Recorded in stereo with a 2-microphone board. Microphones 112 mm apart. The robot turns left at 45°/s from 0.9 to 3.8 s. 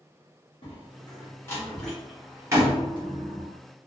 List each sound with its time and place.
0.6 s a door slam: 50° left (ahead or behind), 1.2 m; by 3.5 s 65° right (ahead or behind), 1.2 m